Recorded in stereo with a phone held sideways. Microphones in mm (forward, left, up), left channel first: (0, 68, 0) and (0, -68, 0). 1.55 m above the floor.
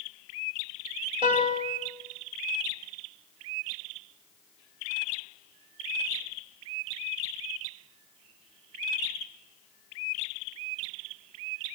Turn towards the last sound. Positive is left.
turn(degrees=-40)  # may be behind; listen again after turning